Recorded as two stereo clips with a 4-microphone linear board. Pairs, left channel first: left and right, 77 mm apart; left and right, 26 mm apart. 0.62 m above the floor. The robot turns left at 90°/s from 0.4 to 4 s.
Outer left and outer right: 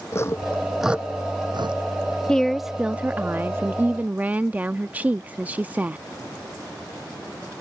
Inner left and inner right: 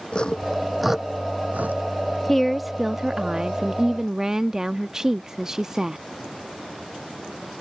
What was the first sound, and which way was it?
Sawing, 35° left (ahead or behind).